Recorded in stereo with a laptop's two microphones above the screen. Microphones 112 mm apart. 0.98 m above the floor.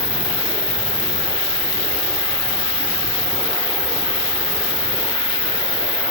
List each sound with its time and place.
0.0 s an insect: 5° right (ahead or behind), 5 m